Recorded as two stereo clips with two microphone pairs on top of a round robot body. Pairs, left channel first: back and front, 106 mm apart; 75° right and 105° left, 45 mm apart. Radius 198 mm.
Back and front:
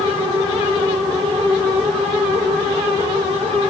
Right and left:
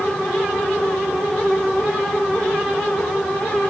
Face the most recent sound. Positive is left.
No sound to turn to.